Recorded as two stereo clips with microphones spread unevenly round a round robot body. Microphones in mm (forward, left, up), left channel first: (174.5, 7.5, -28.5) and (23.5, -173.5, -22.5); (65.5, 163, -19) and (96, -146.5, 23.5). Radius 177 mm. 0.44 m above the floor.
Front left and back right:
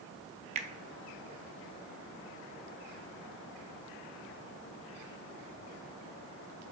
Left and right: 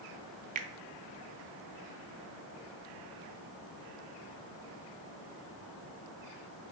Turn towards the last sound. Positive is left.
turn(degrees=-140)